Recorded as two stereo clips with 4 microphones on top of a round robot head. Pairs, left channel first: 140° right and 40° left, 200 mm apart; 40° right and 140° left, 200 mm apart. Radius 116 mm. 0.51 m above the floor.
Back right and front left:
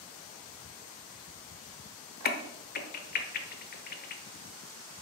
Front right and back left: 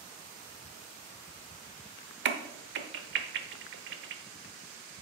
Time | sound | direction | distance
2.2 | a crack | 175° left | 0.8 m